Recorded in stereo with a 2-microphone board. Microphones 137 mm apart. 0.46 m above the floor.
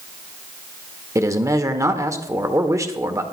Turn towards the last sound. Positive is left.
turn(degrees=-25)  # may be behind; listen again after turning